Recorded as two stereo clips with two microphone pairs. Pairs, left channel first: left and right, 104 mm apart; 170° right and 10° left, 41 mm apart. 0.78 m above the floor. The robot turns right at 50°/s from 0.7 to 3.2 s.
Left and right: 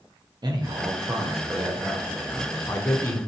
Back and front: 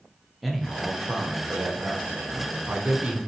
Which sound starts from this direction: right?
A man speaking, at 0.4 s.